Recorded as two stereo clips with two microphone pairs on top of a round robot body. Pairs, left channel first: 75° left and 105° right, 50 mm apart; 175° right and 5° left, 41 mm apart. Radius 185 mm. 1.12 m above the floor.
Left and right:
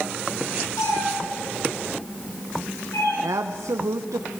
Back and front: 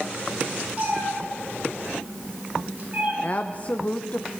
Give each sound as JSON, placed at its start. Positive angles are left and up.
{"t": 0.8, "sound": "a cat meowing", "azimuth_deg": 65, "distance_m": 8.0}
{"t": 3.2, "sound": "a woman speaking", "azimuth_deg": -115, "distance_m": 0.8}